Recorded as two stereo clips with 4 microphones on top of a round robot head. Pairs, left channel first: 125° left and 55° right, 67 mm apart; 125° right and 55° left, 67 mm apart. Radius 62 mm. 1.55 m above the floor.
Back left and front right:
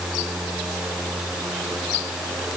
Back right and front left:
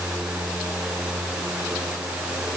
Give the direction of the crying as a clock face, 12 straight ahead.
I don't hear crying.